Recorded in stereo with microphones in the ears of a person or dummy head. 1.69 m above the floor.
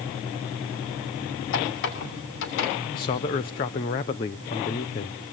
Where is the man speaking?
20° left (ahead or behind), 0.6 m.